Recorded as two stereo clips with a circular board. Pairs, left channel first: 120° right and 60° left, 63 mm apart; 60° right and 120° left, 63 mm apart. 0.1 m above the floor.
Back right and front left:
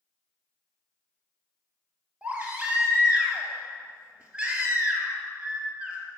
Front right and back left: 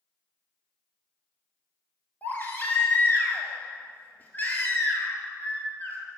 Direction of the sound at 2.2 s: 10° right.